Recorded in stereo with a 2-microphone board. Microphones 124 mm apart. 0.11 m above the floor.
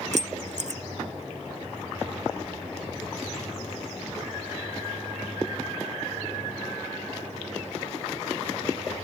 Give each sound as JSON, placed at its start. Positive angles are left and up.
{"t": 0.1, "sound": "keys jangling", "side_deg": -65}